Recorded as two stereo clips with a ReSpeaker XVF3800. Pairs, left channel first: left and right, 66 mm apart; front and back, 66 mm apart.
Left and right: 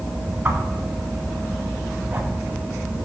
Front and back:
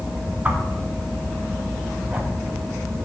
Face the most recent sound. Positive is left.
turn(degrees=-125)